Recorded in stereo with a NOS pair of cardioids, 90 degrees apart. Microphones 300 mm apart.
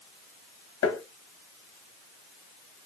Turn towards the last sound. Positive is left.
turn(degrees=50)